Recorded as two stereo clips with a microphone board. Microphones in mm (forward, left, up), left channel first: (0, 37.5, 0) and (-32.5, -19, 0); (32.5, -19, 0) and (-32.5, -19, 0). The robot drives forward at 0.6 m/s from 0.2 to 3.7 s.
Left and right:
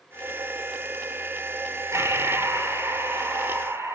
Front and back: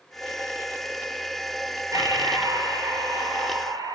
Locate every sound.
1.9 s breathing: 160° right, 6.5 m; by 4.0 s 165° right, 7.5 m